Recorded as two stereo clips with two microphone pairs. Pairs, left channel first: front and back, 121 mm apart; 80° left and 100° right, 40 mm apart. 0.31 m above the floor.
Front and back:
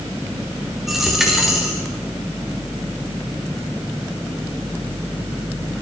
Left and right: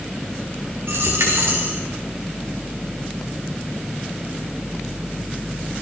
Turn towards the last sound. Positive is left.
turn(degrees=-90)